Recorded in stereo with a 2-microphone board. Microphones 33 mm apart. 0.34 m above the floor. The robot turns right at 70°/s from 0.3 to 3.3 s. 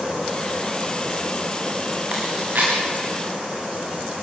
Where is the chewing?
40° right (ahead or behind), 7.5 m; by 2.7 s 80° right, 7.5 m.